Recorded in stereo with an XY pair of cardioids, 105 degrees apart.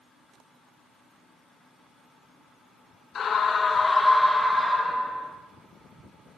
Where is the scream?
55° left, 0.8 m; by 5.3 s 30° right, 1.1 m.